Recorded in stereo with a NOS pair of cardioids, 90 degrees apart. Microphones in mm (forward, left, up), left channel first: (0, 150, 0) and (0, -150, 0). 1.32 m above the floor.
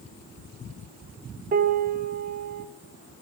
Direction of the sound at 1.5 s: 30° right.